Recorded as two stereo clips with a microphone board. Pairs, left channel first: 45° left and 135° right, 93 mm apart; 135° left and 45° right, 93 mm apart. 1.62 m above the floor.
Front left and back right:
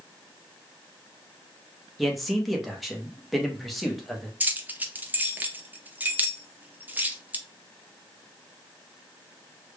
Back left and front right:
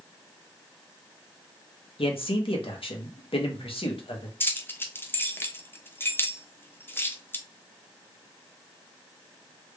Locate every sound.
2.0 s a man speaking: 135° left, 1.0 m
4.4 s keys jangling: 175° left, 0.5 m